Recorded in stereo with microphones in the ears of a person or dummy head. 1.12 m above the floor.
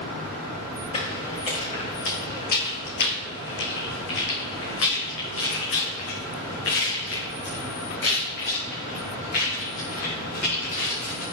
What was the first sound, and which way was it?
Footsteps, 30° left (ahead or behind).